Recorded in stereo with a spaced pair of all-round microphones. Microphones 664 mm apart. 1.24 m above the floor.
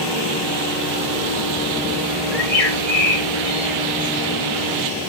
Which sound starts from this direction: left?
A bird, at 2.3 s.